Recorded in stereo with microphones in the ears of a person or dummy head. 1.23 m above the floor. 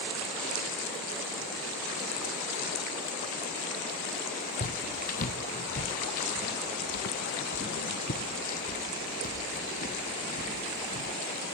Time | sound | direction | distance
4.6 | footsteps | 45° left (ahead or behind) | ?